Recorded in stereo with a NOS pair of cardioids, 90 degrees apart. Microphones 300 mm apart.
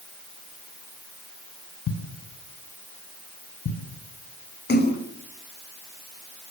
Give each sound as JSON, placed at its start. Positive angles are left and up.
{"t": 1.9, "sound": "a thud", "azimuth_deg": 60, "distance_m": 5.0}
{"t": 4.7, "sound": "a splash", "azimuth_deg": 35, "distance_m": 4.5}